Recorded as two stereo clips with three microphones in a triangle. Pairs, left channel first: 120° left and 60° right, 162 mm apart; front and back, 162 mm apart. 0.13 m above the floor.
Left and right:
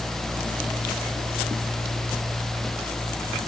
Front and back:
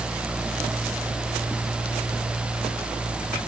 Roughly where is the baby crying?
I don't hear a baby crying.